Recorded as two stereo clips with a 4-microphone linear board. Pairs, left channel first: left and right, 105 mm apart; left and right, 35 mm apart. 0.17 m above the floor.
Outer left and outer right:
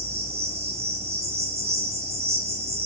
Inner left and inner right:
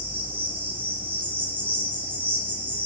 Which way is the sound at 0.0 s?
80° right.